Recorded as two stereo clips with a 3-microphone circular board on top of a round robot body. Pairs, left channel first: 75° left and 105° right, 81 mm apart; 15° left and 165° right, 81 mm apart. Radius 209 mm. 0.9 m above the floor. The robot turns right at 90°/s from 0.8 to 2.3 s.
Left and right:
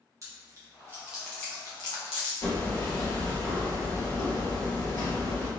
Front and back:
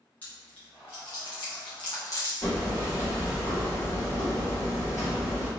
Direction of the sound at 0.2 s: 55° right.